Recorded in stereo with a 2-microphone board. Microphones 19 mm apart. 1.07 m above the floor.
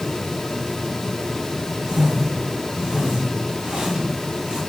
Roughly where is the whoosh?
Right.